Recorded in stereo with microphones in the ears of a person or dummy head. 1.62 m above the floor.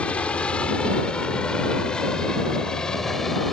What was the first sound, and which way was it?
A helicopter, 15° left (ahead or behind).